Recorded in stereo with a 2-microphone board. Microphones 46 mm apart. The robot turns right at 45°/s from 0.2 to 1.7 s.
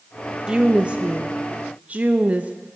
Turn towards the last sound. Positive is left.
turn(degrees=-90)